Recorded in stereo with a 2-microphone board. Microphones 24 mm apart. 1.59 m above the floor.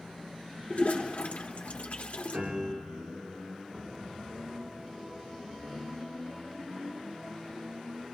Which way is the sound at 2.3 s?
50° right (ahead or behind).